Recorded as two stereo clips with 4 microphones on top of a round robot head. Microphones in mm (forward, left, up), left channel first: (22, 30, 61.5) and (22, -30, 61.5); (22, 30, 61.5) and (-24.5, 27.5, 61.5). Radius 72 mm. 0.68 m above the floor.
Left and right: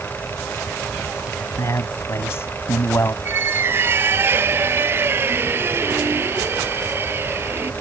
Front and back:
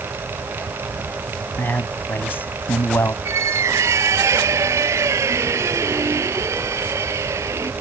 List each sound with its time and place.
1.6 s a man speaking: 50° left; by 3.1 s 35° left
3.2 s a squeak: 150° right